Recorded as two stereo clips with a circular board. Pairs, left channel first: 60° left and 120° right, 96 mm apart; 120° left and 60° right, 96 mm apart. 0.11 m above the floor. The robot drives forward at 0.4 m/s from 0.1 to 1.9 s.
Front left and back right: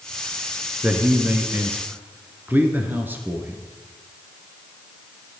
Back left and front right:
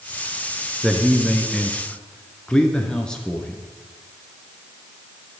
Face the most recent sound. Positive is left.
turn(degrees=-165)